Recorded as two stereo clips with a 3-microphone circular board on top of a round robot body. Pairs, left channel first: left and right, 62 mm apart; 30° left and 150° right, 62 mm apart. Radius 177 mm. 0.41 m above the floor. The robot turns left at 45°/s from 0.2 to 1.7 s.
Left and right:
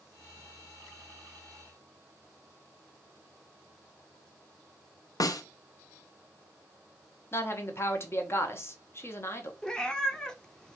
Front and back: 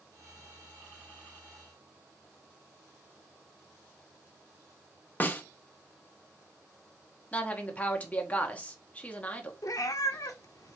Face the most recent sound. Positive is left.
turn(degrees=15)